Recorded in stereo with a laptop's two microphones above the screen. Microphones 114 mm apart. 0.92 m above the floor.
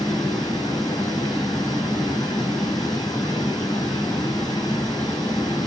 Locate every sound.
0.0 s running water: 35° left (ahead or behind), 3.5 m